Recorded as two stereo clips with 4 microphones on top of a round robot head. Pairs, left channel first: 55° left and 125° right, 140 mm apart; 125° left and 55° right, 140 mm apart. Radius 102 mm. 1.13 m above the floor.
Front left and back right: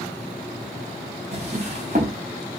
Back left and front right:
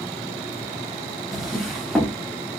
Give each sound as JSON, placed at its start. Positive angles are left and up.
{"t": 1.3, "sound": "a drawer", "azimuth_deg": -145, "distance_m": 0.7}